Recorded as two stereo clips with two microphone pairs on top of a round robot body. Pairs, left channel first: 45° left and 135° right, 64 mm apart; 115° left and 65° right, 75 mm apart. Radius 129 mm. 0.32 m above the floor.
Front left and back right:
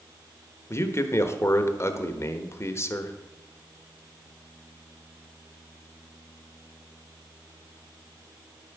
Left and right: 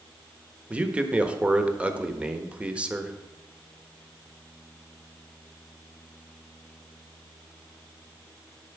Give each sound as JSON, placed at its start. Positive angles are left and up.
{"t": 0.7, "sound": "a man speaking", "azimuth_deg": 0, "distance_m": 1.2}